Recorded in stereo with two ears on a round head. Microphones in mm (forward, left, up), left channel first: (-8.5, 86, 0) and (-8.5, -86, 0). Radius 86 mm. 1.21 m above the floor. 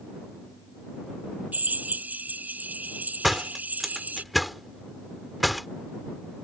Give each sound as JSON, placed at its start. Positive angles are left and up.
{"t": 1.5, "sound": "a drill", "side_deg": -10}
{"t": 3.2, "sound": "a door slam", "side_deg": 0}